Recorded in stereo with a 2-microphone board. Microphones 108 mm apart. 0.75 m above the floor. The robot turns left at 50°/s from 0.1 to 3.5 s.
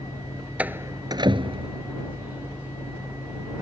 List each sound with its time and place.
0.6 s a door slam: 10° right (ahead or behind); by 1.8 s 70° right (ahead or behind)